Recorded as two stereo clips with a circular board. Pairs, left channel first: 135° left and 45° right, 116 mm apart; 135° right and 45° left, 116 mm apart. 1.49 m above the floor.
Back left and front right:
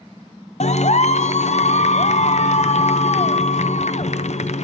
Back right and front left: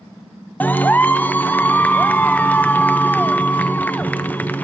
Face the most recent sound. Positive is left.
turn(degrees=150)